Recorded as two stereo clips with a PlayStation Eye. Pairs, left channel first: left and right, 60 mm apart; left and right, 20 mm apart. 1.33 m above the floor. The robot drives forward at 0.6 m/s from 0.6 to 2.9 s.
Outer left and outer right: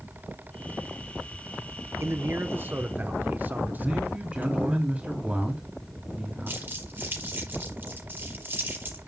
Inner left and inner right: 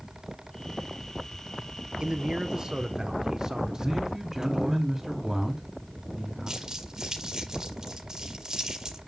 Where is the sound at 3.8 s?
20° right (ahead or behind), 4 m.